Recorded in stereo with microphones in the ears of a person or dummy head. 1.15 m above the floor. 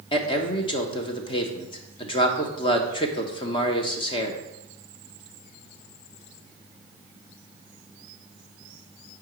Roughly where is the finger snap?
No finger snap in this recording.